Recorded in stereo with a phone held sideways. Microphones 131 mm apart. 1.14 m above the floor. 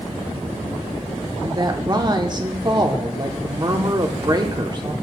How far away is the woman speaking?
About 0.8 m.